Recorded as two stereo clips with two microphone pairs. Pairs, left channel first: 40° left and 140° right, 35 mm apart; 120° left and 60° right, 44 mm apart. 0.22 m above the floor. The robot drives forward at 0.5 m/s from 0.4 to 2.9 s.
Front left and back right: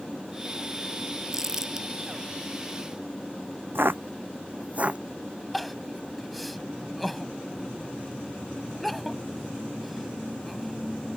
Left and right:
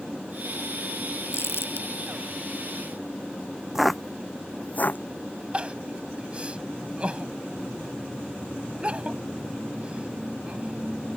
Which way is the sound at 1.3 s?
140° left.